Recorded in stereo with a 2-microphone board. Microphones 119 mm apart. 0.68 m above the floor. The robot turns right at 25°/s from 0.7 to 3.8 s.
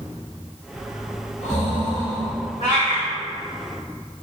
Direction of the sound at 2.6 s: 80° left.